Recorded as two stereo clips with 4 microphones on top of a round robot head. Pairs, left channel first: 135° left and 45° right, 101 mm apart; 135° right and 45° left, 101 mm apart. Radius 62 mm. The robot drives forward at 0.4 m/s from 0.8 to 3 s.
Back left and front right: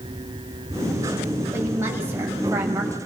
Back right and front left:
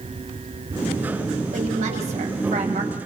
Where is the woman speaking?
25° left, 6.5 m.